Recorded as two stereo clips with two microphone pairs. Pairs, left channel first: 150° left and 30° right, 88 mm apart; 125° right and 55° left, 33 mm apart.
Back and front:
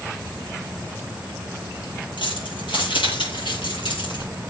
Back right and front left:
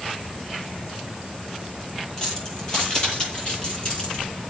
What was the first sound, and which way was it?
Keys jangling, 170° left.